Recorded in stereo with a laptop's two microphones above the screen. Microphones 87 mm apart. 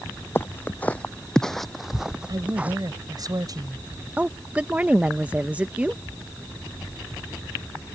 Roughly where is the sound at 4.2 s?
Centre.